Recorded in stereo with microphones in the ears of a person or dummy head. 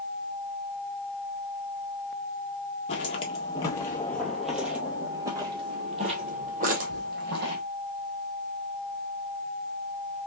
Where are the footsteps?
30° left (ahead or behind), 1.5 m; by 7.6 s 50° right (ahead or behind), 2 m.